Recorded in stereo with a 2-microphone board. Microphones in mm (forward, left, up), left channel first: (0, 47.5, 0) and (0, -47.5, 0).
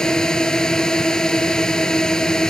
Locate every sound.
0.0 s a drone: 5° left (ahead or behind)